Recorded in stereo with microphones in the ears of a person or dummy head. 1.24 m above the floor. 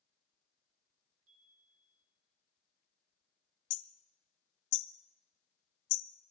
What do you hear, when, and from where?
1.3 s a chime: 75° right (ahead or behind), 2.0 m
3.7 s hammering: 65° left (ahead or behind), 0.7 m